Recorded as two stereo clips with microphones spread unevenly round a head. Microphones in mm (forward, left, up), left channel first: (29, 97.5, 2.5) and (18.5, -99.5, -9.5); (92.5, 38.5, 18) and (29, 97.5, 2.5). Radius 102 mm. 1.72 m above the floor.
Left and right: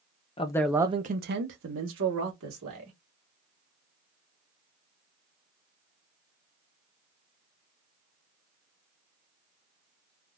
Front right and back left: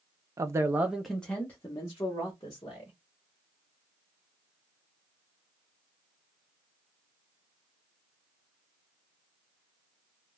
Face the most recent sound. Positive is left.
turn(degrees=-100)